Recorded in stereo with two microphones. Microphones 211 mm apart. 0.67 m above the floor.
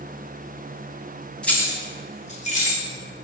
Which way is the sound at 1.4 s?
5° left (ahead or behind).